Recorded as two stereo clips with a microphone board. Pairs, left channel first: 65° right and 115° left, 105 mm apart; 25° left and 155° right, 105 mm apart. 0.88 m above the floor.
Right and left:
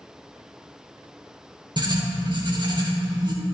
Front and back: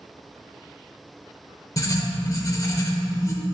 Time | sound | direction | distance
1.8 | writing | 75° left | 0.9 m